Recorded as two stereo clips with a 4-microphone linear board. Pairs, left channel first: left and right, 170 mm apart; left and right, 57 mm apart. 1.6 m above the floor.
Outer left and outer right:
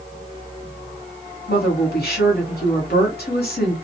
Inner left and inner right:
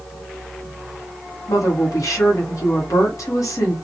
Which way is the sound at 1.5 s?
70° left (ahead or behind).